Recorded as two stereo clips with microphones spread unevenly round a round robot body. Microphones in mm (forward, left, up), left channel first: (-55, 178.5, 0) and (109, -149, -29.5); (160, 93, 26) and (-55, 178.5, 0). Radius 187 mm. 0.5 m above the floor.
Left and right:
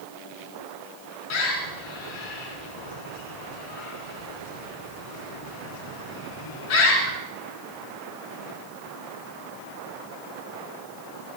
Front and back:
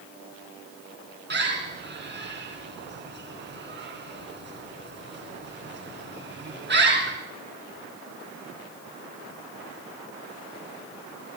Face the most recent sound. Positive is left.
turn(degrees=115)